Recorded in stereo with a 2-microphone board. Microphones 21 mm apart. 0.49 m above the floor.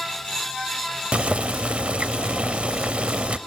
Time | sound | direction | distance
1.1 | boiling | 65° right (ahead or behind) | 0.5 m